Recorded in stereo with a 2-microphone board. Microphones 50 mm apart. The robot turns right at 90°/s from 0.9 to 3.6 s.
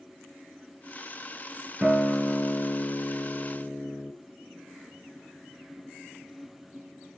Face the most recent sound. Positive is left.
turn(degrees=140)